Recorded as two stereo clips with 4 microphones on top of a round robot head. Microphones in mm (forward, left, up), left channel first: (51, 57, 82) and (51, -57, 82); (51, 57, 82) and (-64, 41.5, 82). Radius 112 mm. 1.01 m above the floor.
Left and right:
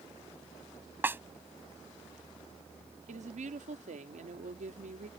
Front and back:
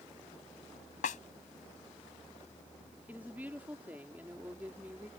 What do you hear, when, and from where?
1.0 s a snare drum: 20° right
3.1 s a woman speaking: 95° right